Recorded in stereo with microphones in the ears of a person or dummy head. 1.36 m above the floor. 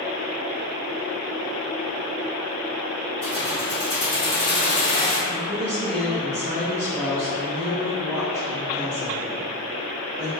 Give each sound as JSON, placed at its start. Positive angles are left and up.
{"t": 3.2, "sound": "keys jangling", "side_deg": 0, "distance_m": 0.7}
{"t": 5.3, "sound": "a woman speaking", "side_deg": 10, "distance_m": 1.1}